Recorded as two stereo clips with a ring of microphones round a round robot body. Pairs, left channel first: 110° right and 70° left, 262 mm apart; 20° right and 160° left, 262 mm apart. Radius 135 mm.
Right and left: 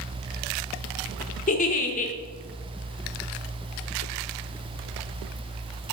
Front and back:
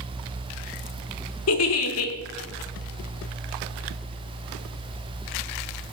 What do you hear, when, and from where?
1.5 s a giggle: 55° right, 0.8 m